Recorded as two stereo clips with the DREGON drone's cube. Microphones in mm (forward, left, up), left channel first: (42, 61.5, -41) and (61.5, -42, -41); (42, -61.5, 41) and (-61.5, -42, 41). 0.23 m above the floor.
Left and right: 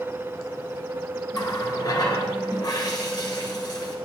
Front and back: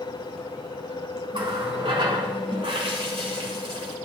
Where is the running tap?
145° left, 1.7 m.